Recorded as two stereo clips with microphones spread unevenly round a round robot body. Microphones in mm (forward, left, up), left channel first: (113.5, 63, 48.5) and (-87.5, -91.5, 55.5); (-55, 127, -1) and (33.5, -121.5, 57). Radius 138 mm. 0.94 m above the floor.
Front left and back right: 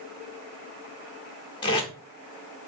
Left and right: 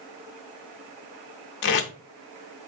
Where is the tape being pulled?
95° left, 0.6 m.